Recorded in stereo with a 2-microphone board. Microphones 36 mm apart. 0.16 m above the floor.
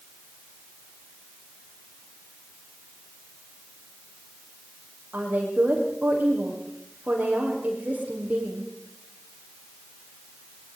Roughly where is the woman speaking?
Right.